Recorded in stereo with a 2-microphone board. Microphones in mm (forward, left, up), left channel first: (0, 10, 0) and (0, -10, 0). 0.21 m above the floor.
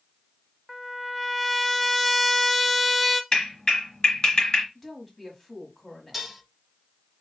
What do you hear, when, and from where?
0.7 s a trumpet: centre (ahead or behind), 0.5 m
3.3 s a clap: 35° left (ahead or behind), 2 m
4.8 s a woman speaking: 10° left (ahead or behind), 1.6 m
6.1 s dishes clattering: 5° right (ahead or behind), 1.0 m